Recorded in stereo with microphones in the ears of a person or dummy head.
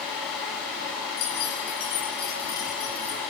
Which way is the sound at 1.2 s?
55° left (ahead or behind).